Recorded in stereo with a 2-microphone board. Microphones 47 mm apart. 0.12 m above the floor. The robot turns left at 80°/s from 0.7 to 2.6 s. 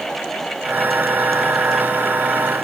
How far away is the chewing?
No chewing in this recording.